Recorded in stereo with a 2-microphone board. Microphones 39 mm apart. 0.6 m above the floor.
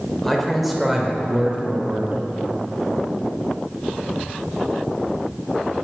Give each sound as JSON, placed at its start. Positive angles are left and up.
{"t": 0.2, "sound": "a man speaking", "side_deg": 5, "distance_m": 2.5}